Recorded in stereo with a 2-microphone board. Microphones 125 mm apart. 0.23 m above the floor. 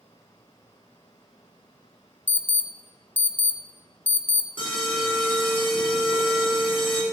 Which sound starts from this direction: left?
An alarm, at 4.6 s.